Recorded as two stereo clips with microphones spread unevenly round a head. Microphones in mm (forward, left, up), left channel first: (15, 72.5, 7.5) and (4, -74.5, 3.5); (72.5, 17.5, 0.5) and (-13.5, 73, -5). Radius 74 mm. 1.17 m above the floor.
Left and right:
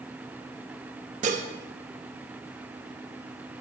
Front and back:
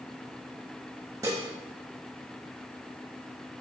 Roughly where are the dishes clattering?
Behind right.